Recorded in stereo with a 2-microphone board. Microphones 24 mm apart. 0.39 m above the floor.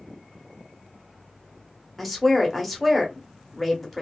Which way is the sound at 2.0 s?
5° left (ahead or behind).